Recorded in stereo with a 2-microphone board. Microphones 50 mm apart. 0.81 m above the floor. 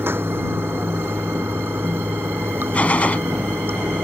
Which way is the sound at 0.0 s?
45° right (ahead or behind).